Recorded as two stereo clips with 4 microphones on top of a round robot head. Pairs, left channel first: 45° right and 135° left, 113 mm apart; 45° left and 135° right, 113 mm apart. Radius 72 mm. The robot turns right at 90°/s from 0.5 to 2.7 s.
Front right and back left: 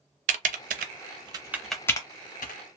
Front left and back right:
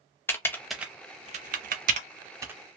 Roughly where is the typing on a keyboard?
Behind left.